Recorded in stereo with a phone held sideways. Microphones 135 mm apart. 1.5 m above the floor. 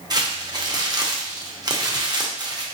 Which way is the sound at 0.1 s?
30° right (ahead or behind).